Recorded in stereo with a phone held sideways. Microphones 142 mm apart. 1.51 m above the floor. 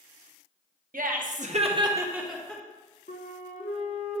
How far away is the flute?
About 0.9 m.